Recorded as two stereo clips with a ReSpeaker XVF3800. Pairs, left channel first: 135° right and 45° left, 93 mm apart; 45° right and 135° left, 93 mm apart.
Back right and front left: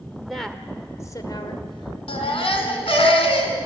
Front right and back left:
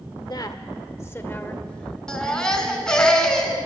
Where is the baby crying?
125° right, 2.5 m.